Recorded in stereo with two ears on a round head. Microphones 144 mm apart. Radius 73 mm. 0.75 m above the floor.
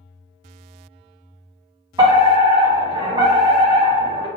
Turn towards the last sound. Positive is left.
turn(degrees=-30)  # may be behind; listen again after turning